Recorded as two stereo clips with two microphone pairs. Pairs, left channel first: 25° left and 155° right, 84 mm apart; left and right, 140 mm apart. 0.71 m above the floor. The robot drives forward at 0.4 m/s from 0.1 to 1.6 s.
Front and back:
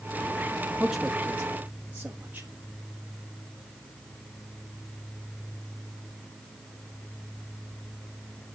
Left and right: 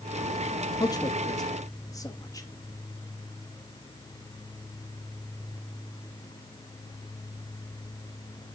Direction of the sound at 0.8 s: 120° left.